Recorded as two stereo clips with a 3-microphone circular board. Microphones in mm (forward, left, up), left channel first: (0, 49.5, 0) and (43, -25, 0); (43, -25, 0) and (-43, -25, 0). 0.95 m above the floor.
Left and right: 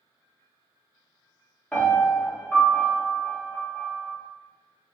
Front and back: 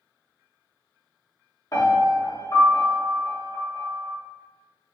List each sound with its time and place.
1.7 s a piano: 45° left, 0.8 m